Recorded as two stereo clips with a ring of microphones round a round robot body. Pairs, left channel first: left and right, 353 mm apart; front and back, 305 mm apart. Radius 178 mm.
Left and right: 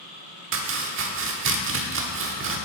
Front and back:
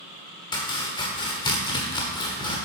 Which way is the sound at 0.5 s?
65° right.